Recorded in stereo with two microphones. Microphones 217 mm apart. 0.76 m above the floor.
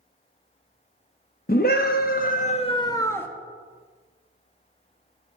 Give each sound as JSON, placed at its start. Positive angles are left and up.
{"t": 1.5, "sound": "a scream", "side_deg": 40, "distance_m": 0.7}